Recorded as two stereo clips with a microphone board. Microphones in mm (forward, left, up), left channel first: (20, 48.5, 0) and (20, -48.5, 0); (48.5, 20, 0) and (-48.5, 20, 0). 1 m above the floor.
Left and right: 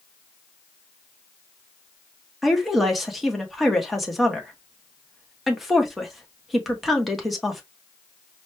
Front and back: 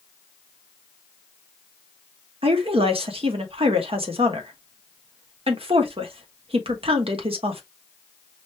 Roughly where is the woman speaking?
Behind.